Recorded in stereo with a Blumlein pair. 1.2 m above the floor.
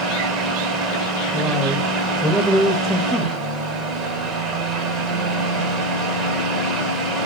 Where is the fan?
20° right, 1.0 m.